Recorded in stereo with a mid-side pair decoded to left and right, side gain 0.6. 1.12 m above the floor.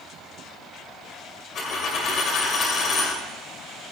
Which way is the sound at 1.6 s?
50° left.